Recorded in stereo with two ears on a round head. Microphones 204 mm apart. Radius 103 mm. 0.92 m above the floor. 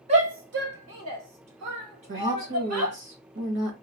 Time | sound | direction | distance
0.1 | a shout | 25° right (ahead or behind) | 1.0 m
2.1 | a woman speaking | 50° right (ahead or behind) | 1.2 m